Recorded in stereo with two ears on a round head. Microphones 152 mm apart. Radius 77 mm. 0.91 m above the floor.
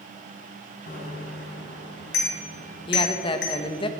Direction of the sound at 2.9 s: 30° left (ahead or behind).